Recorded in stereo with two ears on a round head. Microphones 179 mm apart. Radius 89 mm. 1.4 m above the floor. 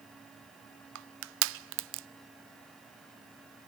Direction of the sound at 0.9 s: 65° right (ahead or behind).